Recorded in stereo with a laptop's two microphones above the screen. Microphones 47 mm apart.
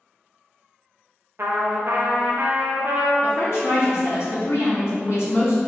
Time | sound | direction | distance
1.4 | a trumpet | 55° right (ahead or behind) | 0.6 m
3.2 | a woman speaking | 70° left (ahead or behind) | 1.4 m